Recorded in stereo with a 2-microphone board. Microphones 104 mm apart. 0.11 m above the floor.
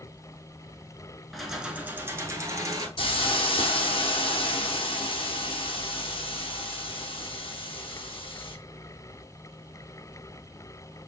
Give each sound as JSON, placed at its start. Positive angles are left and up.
{"t": 1.3, "sound": "keys jangling", "side_deg": 0, "distance_m": 0.8}
{"t": 3.0, "sound": "a hiss", "side_deg": 60, "distance_m": 0.8}